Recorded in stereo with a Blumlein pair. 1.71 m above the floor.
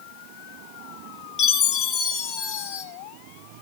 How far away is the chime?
About 2.5 m.